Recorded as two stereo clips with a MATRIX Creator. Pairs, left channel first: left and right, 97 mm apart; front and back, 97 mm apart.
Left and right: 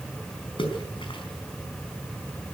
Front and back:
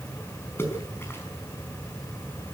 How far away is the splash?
About 5 m.